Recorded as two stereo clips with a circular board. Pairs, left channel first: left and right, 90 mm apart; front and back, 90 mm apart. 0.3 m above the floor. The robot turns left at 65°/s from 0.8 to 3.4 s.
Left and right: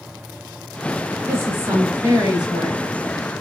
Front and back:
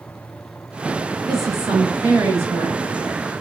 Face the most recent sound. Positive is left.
turn(degrees=140)